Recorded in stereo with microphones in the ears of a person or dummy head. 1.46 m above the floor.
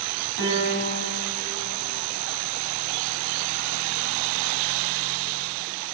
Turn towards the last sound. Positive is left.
turn(degrees=-65)  # may be behind; listen again after turning